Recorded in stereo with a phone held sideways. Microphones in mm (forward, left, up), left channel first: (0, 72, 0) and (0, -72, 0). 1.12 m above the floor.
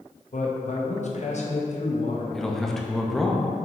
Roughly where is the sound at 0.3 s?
Left.